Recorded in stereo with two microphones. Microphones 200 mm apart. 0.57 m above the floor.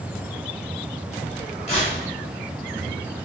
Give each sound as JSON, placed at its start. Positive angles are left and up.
{"t": 1.7, "sound": "tearing paper", "side_deg": 30, "distance_m": 1.1}